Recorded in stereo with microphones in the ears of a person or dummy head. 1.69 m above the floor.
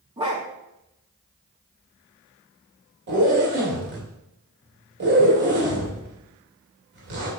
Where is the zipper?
55° right (ahead or behind), 2.5 m.